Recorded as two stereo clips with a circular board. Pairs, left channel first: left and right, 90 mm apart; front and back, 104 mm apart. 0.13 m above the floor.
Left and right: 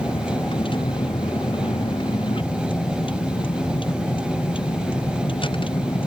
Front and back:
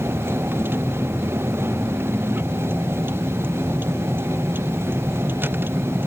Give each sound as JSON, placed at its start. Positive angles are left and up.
{"t": 0.0, "sound": "a vehicle", "azimuth_deg": 110}